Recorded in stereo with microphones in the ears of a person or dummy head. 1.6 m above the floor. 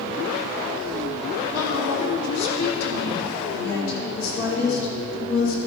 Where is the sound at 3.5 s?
80° left, 5.5 m.